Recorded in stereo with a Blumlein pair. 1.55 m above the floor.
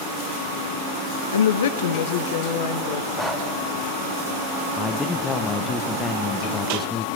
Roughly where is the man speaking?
Ahead.